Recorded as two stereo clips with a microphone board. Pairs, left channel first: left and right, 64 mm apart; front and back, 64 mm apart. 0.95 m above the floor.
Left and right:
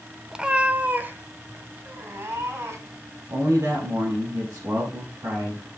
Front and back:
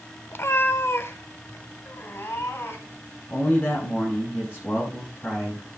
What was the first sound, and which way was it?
A cat meowing, 15° right.